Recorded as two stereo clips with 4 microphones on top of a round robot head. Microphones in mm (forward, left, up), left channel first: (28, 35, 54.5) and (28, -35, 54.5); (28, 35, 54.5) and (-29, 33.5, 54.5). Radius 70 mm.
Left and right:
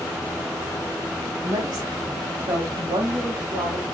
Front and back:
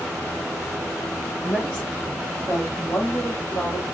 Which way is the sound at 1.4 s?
65° right.